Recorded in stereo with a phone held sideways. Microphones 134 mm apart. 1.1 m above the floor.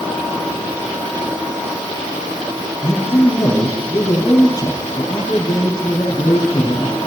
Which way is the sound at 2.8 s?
30° left (ahead or behind).